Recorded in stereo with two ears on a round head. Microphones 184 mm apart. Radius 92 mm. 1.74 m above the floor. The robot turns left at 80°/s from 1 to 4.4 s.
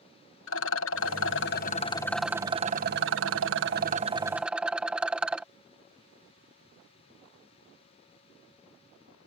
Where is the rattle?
100° left; by 5.5 s 175° right.